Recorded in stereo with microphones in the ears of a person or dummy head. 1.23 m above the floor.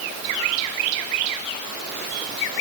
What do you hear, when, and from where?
Only background noise.